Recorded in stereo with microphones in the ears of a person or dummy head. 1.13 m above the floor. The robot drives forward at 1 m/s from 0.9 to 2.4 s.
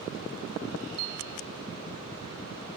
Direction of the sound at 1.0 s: 70° right (ahead or behind).